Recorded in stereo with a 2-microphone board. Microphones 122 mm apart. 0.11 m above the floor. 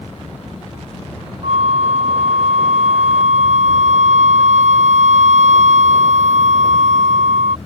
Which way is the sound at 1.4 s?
70° right (ahead or behind).